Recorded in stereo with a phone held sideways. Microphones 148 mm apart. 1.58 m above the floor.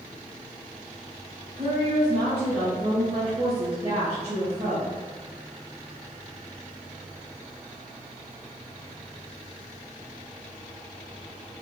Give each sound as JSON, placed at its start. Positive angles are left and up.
{"t": 1.6, "sound": "a woman speaking", "side_deg": -45, "distance_m": 2.5}